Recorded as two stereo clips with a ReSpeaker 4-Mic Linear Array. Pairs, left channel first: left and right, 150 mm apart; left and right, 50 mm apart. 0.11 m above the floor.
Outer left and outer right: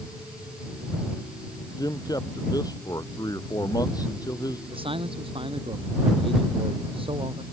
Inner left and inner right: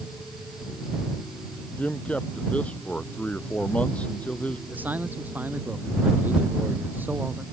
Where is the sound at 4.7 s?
35° right (ahead or behind).